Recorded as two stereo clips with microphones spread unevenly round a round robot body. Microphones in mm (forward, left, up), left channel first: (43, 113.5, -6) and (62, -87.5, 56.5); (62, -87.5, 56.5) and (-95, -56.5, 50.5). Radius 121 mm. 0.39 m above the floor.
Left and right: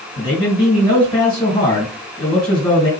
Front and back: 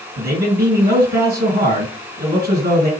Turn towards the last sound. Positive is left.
turn(degrees=150)